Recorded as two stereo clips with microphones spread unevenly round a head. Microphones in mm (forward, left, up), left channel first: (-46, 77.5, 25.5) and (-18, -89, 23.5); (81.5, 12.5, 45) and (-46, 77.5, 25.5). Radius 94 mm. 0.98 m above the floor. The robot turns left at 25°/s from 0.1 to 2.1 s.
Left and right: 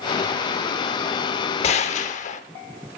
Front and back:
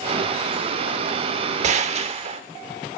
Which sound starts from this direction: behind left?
A gunshot, at 1.6 s.